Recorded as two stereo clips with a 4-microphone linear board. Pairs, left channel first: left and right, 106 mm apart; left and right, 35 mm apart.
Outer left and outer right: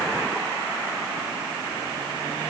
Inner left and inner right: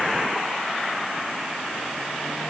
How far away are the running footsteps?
I don't hear running footsteps.